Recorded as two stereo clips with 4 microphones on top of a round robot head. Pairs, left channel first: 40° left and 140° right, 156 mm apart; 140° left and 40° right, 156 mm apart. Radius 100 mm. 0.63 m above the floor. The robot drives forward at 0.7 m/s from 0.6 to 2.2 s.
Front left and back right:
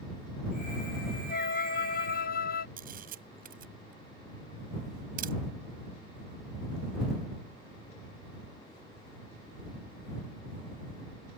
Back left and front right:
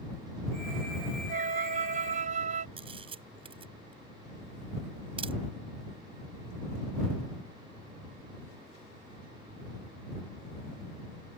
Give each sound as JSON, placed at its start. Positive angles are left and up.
{"t": 1.3, "sound": "a flute", "azimuth_deg": 5}
{"t": 2.8, "sound": "a camera shutter", "azimuth_deg": -100}